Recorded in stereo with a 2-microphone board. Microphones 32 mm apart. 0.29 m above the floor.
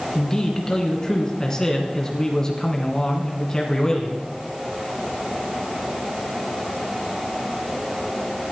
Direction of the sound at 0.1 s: 20° left (ahead or behind).